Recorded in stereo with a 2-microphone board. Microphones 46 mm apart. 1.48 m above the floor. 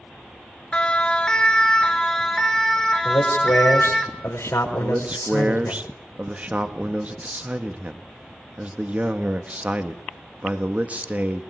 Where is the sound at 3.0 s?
80° left, 5.5 m.